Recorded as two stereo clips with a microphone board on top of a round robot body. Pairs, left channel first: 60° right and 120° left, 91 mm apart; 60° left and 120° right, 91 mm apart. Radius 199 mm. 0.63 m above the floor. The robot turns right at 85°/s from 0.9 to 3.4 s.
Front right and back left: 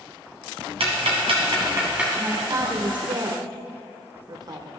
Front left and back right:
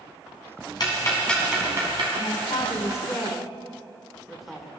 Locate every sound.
0.8 s ticking: 105° left, 1.9 m; by 2.1 s 155° right, 1.9 m
2.2 s a man speaking: 45° left, 1.4 m; by 4.7 s 150° left, 1.4 m